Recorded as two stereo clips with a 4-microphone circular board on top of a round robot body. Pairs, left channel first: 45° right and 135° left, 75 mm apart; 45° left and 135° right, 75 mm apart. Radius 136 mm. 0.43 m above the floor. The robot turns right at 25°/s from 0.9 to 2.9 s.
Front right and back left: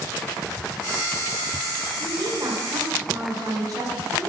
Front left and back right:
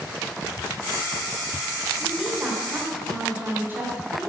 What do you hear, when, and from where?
2.0 s a woman speaking: 140° left, 2 m; by 4.3 s 160° left, 2 m